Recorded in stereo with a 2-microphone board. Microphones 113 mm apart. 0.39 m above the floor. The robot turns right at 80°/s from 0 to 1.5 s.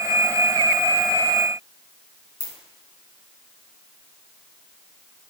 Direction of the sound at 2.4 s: 40° left (ahead or behind).